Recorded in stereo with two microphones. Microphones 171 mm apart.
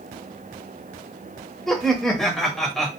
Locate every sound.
1.7 s laughter: centre (ahead or behind), 0.9 m